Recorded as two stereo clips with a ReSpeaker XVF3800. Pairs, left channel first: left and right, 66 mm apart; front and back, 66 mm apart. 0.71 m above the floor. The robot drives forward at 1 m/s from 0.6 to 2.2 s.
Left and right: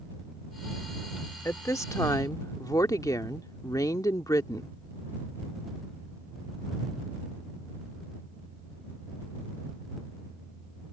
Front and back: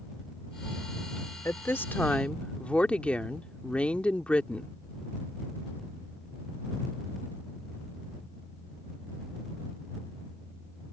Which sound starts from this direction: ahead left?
A woman speaking, at 1.4 s.